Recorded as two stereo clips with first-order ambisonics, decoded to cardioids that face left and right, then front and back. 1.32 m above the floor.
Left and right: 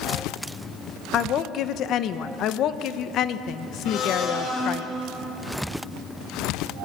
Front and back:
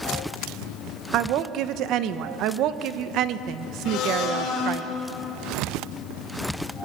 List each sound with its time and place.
1.1 s a woman speaking: 140° left, 1.0 m
3.9 s a blender: 45° left, 5.5 m